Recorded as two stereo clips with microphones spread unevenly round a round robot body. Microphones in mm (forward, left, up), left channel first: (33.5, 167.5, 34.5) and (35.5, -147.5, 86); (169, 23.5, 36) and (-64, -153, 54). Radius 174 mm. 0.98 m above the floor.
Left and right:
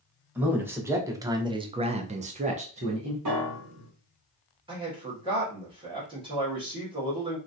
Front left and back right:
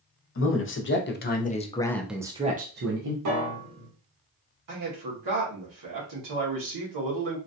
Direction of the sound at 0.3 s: Straight ahead.